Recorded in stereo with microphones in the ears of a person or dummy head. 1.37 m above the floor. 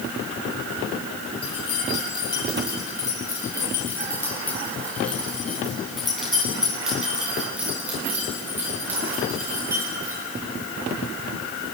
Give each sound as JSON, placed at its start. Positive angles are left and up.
{"t": 1.4, "sound": "keys jangling", "side_deg": 35, "distance_m": 8.5}